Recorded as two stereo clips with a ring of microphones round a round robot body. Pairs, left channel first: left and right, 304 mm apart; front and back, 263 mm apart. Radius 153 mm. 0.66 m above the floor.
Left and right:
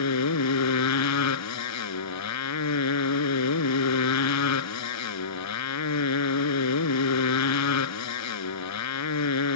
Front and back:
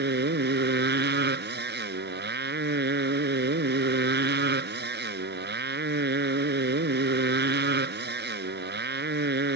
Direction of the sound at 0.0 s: 130° left.